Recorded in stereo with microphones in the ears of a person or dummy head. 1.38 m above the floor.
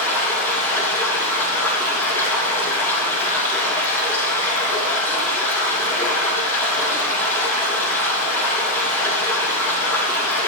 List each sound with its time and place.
0.0 s running water: 10° left (ahead or behind), 6 m